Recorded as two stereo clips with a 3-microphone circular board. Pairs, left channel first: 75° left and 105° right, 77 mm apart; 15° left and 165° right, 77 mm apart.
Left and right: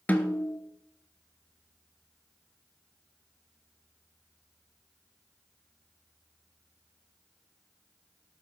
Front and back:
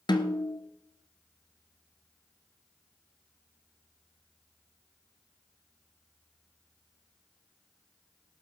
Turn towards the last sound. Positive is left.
turn(degrees=5)